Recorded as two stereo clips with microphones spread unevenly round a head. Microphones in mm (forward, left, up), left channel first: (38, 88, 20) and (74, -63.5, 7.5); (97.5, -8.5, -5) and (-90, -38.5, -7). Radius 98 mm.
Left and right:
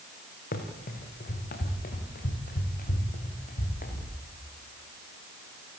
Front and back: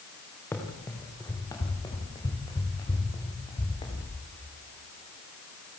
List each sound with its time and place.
0.5 s running footsteps: 90° left, 4 m; by 4.1 s 75° left, 6 m